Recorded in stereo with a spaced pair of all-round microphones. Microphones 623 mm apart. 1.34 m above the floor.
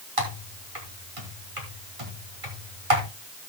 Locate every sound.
0.2 s typing on a keyboard: 55° right (ahead or behind), 3 m